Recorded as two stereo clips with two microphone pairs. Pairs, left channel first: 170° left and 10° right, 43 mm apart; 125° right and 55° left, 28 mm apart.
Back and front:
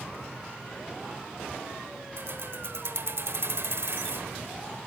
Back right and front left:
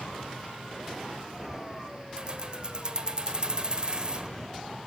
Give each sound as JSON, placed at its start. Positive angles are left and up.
{"t": 2.2, "sound": "keys jangling", "azimuth_deg": 0, "distance_m": 1.1}